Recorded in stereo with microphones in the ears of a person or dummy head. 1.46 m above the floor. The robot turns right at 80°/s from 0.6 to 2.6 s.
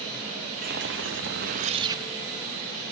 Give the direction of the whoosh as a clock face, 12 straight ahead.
4 o'clock.